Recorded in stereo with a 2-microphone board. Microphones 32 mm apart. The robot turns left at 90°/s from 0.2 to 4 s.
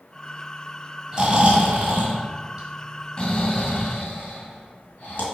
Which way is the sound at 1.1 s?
20° right (ahead or behind).